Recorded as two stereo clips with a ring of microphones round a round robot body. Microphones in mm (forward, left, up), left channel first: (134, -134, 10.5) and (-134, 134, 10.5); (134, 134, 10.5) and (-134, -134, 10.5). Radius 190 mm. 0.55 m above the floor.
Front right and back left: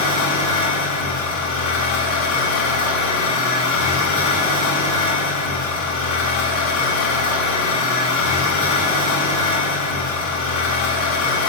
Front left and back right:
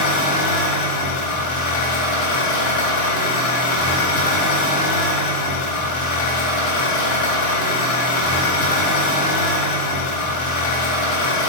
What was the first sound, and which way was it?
An engine running, 5° left.